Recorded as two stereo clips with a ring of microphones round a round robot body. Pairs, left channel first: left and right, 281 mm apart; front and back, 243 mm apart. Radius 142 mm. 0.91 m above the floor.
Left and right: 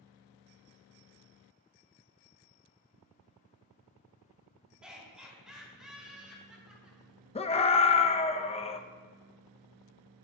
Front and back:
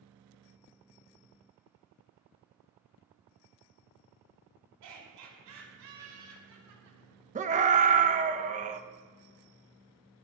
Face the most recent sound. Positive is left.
turn(degrees=145)